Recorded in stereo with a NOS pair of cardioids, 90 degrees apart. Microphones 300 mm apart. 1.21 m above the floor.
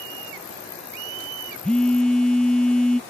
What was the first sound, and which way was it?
A phone buzzing, 5° left.